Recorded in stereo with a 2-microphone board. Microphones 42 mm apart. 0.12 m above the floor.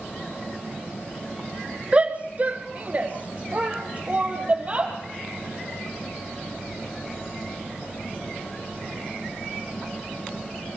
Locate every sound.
1.9 s a shout: 30° right (ahead or behind), 1.3 m